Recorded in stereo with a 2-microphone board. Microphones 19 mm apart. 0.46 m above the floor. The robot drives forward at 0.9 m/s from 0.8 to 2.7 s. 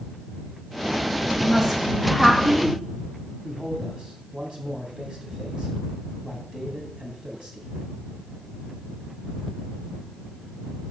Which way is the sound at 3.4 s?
50° right (ahead or behind).